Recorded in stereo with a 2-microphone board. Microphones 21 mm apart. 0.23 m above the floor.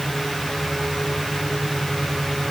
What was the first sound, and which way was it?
Only background noise.